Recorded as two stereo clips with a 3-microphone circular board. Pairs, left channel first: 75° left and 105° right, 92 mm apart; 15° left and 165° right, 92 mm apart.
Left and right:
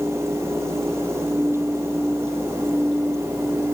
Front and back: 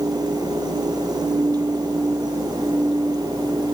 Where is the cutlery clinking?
I don't hear cutlery clinking.